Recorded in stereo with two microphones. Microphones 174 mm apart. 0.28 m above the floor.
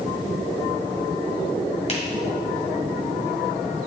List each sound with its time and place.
1.9 s a finger snap: 40° left (ahead or behind), 1.4 m